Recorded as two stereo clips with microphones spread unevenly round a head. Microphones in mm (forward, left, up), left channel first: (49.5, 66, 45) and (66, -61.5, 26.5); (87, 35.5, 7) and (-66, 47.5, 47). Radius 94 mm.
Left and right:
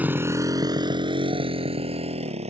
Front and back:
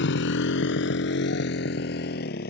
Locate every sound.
0.0 s a motorcycle: 5° right; by 2.5 s 45° right